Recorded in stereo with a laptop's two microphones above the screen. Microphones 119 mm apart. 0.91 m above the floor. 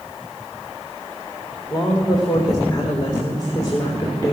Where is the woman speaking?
35° left (ahead or behind), 3 m.